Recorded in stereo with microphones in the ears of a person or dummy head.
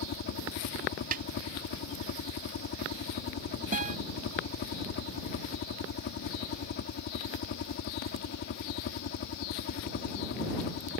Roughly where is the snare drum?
Right.